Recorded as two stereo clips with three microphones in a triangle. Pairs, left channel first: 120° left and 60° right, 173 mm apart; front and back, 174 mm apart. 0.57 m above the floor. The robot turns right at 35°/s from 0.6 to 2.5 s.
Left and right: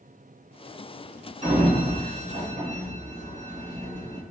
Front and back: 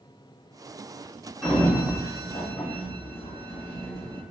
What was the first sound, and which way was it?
A sliding door, 85° right.